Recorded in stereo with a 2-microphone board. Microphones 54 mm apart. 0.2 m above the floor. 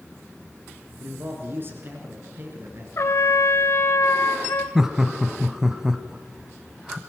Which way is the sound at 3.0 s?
55° left (ahead or behind).